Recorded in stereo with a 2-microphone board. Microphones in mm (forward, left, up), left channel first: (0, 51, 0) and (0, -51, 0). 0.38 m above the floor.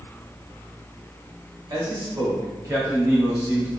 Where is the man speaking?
45° right (ahead or behind), 1.3 m; by 3.7 s 25° right (ahead or behind), 2.5 m.